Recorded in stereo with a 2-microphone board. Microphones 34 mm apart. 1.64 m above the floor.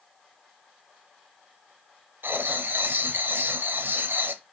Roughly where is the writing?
Right.